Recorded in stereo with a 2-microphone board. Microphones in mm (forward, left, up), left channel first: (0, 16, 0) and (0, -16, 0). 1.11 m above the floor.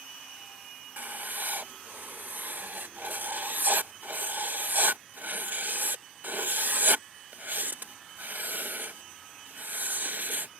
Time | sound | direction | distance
1.0 | writing | 60° right (ahead or behind) | ?